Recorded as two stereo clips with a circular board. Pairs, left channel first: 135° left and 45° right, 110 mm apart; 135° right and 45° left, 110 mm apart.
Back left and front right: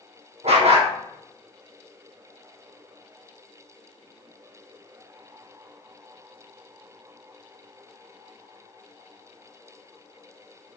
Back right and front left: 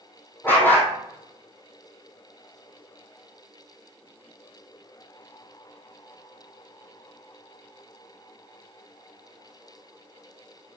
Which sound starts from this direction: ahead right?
A dog barking, at 0.4 s.